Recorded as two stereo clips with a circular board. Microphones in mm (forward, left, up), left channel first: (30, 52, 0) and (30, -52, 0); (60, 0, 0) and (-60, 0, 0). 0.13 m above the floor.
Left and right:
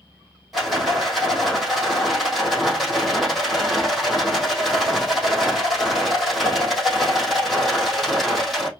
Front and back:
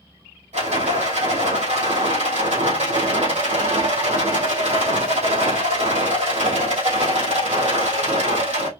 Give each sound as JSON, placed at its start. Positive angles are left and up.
{"t": 0.5, "sound": "a rattle", "azimuth_deg": 180, "distance_m": 3.0}